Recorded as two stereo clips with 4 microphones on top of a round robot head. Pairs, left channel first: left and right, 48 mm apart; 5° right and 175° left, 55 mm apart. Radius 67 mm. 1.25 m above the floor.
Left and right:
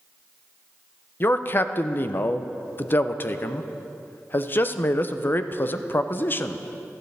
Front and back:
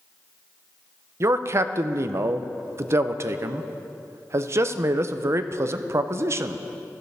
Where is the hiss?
No hiss in this recording.